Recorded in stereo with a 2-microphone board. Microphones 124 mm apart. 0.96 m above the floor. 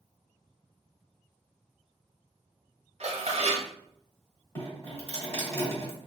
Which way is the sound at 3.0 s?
55° right (ahead or behind).